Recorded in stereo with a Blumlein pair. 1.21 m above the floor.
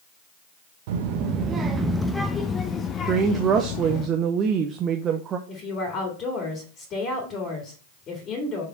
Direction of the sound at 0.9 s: 50° right.